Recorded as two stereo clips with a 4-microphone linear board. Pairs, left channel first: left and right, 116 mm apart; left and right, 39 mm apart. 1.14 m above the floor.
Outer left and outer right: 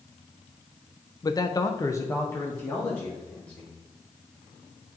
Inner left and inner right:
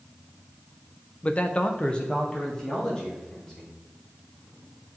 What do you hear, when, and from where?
1.2 s a man speaking: 30° left (ahead or behind), 0.6 m; by 3.7 s 10° left (ahead or behind), 2.5 m